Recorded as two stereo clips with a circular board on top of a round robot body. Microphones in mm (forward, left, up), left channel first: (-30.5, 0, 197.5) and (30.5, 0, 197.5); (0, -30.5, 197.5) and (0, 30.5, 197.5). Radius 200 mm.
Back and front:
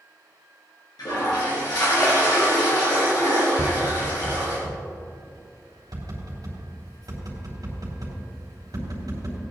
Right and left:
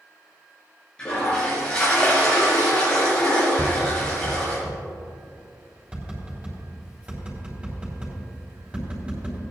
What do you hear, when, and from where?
1.0 s a toilet flushing: 165° right, 3.5 m
3.6 s tapping: 20° left, 3.5 m